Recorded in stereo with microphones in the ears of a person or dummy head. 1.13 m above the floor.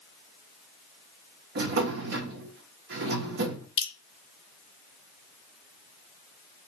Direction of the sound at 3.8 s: 25° left (ahead or behind).